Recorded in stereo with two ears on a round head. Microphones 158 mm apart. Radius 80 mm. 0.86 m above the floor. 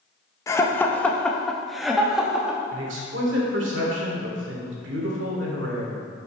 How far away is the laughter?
About 0.8 m.